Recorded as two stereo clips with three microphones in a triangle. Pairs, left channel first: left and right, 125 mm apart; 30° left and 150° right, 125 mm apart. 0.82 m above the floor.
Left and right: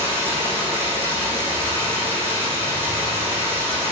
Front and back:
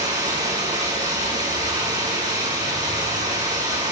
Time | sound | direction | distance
0.0 | running water | 160° right | 5.5 m